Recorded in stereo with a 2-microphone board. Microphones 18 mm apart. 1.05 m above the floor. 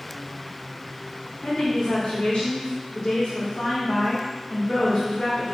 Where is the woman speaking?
65° left (ahead or behind), 2.5 m.